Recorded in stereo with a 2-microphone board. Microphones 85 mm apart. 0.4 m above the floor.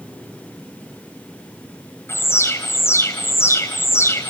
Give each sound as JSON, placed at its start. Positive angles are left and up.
{"t": 2.1, "sound": "an alarm", "side_deg": 30, "distance_m": 3.5}